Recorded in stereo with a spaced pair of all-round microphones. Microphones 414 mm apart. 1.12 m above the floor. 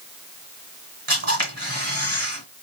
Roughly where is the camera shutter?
Right.